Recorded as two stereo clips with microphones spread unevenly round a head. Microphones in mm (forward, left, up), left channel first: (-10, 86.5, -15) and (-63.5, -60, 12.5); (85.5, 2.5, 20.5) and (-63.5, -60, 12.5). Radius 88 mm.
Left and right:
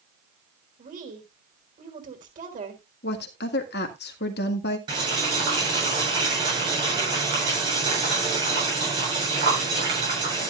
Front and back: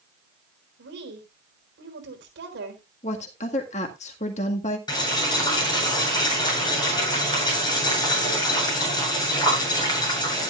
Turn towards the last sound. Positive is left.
turn(degrees=-40)